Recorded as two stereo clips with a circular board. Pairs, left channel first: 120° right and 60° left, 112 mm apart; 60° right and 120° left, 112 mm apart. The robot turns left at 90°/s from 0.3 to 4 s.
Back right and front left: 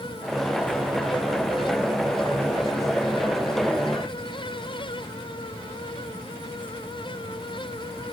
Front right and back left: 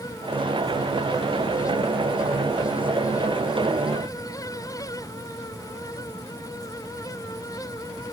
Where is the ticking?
No ticking in this recording.